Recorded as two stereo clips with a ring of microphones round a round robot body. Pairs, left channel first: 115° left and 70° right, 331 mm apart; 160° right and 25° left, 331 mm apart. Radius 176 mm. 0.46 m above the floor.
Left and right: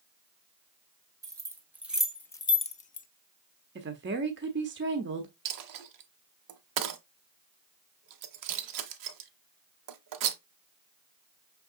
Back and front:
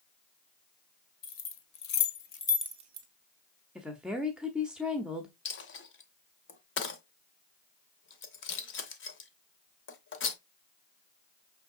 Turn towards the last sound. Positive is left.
turn(degrees=-100)